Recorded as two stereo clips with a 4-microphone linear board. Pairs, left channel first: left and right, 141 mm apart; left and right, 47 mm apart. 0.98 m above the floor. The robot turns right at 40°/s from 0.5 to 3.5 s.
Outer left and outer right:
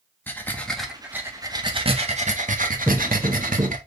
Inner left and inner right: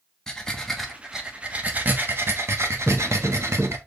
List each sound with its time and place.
0.3 s breathing: 165° left, 1.3 m; by 3.8 s 75° right, 1.3 m
2.9 s footsteps: 20° right (ahead or behind), 1.5 m; by 3.7 s 35° right (ahead or behind), 1.5 m